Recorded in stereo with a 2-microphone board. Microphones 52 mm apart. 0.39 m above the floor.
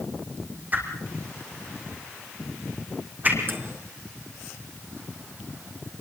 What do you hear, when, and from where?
0.7 s a whoosh: 35° right (ahead or behind), 4 m
3.5 s a microwave: 45° right (ahead or behind), 4 m